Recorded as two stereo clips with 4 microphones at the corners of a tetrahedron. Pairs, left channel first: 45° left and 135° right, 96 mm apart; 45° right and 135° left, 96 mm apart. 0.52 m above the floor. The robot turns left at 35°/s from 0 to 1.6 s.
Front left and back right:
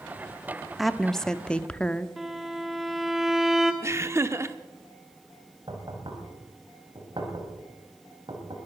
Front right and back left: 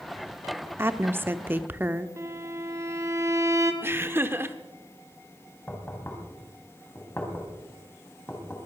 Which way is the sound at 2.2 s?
140° left.